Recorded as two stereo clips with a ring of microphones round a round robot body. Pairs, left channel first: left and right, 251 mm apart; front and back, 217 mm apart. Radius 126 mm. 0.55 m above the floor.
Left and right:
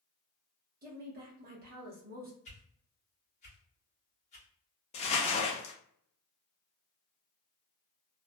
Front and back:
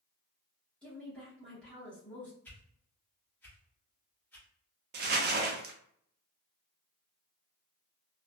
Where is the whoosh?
75° left, 1.2 m.